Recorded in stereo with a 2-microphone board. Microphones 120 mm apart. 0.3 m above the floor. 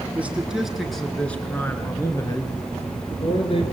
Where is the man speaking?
10° right (ahead or behind), 4 m; by 3.6 s 50° left (ahead or behind), 4.5 m.